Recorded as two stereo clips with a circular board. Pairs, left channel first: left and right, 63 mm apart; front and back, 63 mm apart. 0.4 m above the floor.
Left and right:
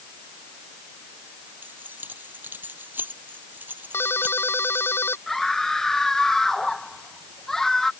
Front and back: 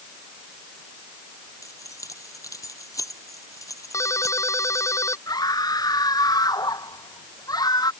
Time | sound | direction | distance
1.6 | keys jangling | 30° right | ?
3.9 | a ringtone | 40° left | ?
5.3 | a scream | 5° left | ?